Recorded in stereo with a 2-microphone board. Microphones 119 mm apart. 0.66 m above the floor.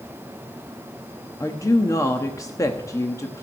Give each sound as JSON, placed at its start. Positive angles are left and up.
{"t": 1.4, "sound": "a woman speaking", "side_deg": 25, "distance_m": 1.0}